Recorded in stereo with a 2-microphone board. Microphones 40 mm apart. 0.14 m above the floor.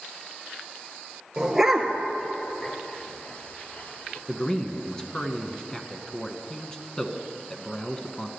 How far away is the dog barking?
About 1.2 m.